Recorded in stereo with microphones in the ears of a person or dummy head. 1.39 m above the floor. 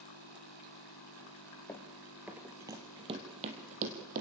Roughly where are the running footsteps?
Centre.